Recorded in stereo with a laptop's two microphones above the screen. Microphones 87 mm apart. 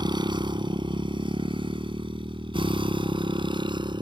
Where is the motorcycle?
60° right (ahead or behind); by 4.0 s 65° right (ahead or behind).